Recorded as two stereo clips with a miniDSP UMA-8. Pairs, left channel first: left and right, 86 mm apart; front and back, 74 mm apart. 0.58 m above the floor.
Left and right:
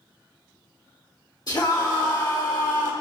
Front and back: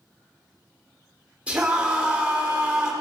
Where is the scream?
110° left, 1.7 m.